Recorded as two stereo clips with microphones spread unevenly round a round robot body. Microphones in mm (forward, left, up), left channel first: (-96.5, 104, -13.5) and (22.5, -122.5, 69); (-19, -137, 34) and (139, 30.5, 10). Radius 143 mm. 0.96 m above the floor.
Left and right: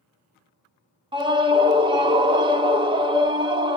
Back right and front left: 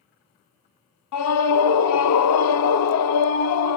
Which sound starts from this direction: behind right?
A scream, at 1.1 s.